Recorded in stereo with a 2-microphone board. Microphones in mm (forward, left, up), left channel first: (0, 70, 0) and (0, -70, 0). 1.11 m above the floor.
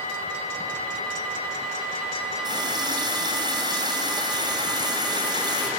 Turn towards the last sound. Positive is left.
turn(degrees=-30)  # may be behind; listen again after turning